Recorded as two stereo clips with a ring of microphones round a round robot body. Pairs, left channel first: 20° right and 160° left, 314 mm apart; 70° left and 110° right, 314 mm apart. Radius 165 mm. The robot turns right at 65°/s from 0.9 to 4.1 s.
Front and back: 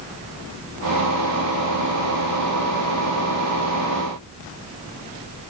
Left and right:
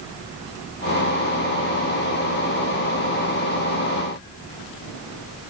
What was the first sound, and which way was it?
Only background noise.